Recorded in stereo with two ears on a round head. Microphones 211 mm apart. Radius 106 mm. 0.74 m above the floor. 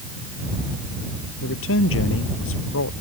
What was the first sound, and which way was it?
A man speaking, 60° left (ahead or behind).